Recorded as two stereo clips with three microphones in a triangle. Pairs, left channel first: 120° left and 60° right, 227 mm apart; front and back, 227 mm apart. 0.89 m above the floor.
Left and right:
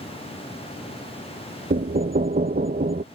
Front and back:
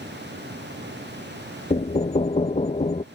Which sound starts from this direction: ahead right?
Knocking, at 1.7 s.